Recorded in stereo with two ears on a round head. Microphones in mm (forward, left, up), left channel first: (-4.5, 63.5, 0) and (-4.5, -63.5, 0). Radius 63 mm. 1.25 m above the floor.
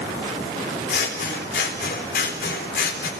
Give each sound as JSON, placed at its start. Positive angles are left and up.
{"t": 0.9, "sound": "scissors", "side_deg": 80, "distance_m": 4.0}